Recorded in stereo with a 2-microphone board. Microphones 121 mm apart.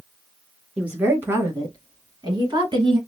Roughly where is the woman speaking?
Centre.